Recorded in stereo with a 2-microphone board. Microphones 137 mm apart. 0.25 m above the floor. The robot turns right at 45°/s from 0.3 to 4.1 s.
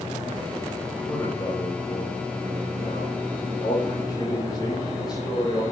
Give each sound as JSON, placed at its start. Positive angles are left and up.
{"t": 1.0, "sound": "a man speaking", "azimuth_deg": 10, "distance_m": 8.0}